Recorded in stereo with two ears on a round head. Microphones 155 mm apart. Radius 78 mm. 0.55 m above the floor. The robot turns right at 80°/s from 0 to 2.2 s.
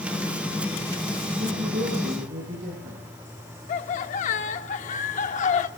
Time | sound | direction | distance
1.4 | a woman speaking | 110° right | 8.5 m
3.7 | laughter | 45° left (ahead or behind) | 0.9 m